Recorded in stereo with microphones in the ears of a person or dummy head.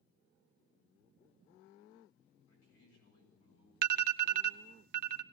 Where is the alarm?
55° right (ahead or behind), 0.6 m.